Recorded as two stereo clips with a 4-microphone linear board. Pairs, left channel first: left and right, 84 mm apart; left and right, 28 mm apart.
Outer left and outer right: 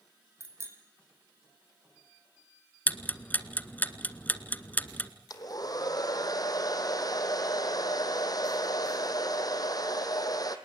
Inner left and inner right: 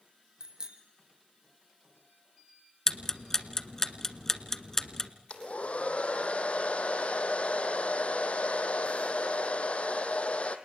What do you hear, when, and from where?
0.4 s a bicycle bell: 35° right (ahead or behind), 3.5 m
2.9 s ticking: 20° left (ahead or behind), 1.3 m
5.3 s a hair dryer: 50° left (ahead or behind), 1.7 m